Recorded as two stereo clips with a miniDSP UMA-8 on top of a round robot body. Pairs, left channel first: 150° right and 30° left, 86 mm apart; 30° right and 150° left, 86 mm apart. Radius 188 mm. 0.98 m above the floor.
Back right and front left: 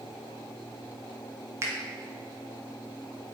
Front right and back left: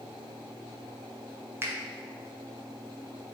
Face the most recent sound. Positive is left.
turn(degrees=85)